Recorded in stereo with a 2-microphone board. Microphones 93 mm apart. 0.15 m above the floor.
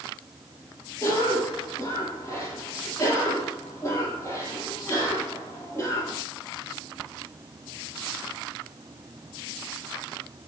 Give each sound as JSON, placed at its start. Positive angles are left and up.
{"t": 1.0, "sound": "a cough", "side_deg": 25, "distance_m": 5.5}